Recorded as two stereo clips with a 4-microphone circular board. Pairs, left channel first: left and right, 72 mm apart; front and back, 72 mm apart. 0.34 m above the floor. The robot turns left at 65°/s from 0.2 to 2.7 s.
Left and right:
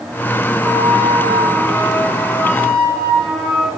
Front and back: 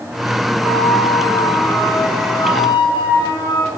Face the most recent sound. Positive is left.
turn(degrees=15)